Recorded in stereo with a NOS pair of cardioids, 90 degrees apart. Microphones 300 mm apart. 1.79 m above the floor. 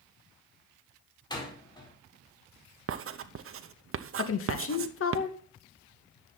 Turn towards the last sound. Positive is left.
turn(degrees=45)